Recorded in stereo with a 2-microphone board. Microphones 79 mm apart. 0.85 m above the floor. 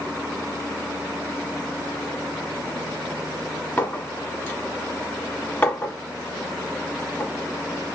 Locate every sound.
3.8 s a clink: 20° left (ahead or behind), 1.0 m